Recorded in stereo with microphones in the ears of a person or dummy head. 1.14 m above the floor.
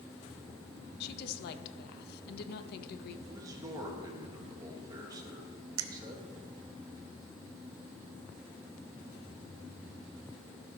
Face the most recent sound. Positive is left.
turn(degrees=-80)